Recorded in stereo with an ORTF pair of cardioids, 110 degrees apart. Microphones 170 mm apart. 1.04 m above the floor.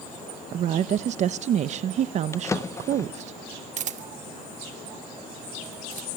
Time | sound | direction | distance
0.5 | a woman speaking | 45° right | 0.5 m
2.3 | a drawer | 20° left | 0.7 m
3.8 | a camera shutter | 50° right | 1.4 m